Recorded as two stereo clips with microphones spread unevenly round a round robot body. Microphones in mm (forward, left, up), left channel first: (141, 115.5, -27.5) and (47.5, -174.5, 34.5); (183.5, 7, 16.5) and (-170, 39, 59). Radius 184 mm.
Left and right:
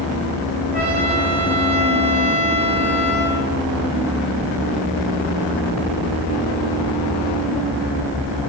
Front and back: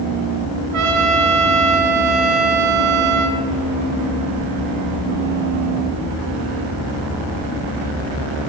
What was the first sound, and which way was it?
A trumpet, straight behind.